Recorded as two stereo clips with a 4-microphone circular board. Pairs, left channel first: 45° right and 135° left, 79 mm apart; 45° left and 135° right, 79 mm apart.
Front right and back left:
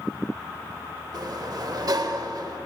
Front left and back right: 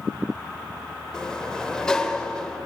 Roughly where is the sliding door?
Behind left.